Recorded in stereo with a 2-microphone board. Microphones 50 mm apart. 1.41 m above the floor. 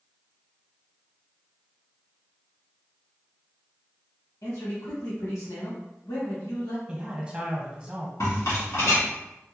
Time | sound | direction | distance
4.4 | a man speaking | 90° left | 1.8 m
6.9 | a man speaking | 25° right (ahead or behind) | 1.1 m
8.2 | a rattle | 75° left (ahead or behind) | 1.8 m